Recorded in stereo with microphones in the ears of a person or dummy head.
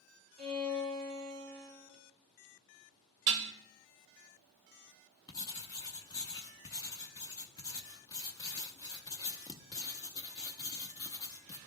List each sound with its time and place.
0.4 s a violin: 35° right (ahead or behind), 2.5 m
3.3 s dishes clattering: 55° right (ahead or behind), 0.7 m
5.3 s writing: 20° left (ahead or behind), 0.7 m